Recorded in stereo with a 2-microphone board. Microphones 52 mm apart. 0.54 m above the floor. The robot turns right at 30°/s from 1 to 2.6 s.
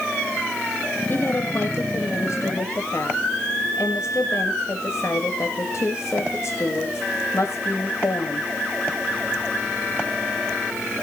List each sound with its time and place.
1.1 s a woman speaking: 45° left, 2.5 m; by 8.5 s 90° left, 2.5 m